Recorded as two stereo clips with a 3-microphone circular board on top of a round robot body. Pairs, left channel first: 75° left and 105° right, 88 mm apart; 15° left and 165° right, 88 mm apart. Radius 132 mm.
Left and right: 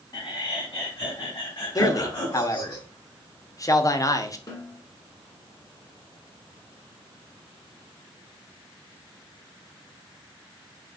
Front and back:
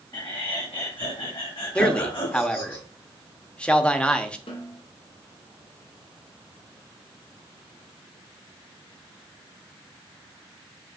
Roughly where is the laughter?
Ahead left.